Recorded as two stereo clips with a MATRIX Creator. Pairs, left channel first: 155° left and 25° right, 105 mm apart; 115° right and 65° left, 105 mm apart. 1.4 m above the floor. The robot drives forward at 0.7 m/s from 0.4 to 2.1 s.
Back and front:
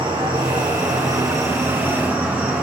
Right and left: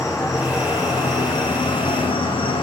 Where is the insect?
55° right, 2 m; by 2.6 s 95° right, 1.8 m.